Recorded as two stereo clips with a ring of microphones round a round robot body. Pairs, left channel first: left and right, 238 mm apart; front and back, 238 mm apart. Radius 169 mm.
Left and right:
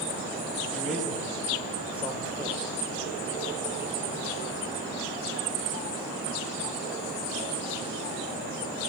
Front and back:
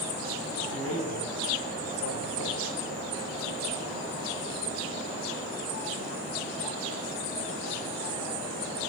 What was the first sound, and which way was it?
A man speaking, straight ahead.